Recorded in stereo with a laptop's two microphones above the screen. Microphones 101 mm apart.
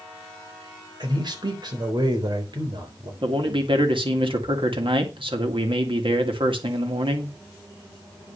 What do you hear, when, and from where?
1.0 s a man speaking: 50° right (ahead or behind), 3.5 m
3.2 s a man speaking: 60° right (ahead or behind), 2 m